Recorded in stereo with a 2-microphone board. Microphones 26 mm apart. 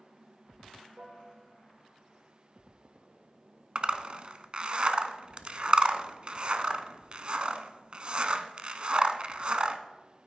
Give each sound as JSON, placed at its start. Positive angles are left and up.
{"t": 1.0, "sound": "a piano", "side_deg": -50, "distance_m": 4.0}
{"t": 3.8, "sound": "a zipper", "side_deg": -45, "distance_m": 0.5}